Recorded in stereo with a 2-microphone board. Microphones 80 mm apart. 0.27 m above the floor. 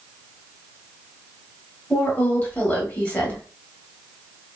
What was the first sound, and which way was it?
A woman speaking, 20° left (ahead or behind).